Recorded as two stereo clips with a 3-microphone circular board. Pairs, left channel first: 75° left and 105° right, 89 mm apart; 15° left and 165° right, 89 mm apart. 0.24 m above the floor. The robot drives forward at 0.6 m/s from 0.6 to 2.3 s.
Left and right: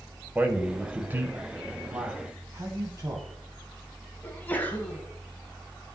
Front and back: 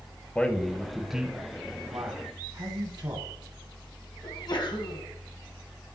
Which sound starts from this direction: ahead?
A sneeze, at 4.2 s.